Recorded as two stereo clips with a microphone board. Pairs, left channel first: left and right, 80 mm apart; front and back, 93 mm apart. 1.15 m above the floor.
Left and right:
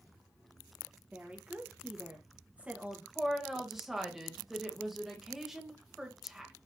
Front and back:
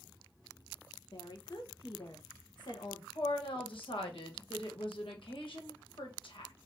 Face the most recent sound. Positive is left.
turn(degrees=-5)